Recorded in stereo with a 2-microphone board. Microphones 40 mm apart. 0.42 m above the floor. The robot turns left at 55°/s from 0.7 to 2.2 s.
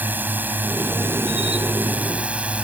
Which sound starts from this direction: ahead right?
A drone, at 0.0 s.